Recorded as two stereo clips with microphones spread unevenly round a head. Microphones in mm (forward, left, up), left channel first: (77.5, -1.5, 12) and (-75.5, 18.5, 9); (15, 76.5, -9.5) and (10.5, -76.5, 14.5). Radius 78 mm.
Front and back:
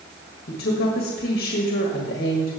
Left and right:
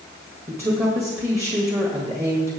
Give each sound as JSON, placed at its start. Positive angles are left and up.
{"t": 0.5, "sound": "a woman speaking", "azimuth_deg": -15, "distance_m": 1.7}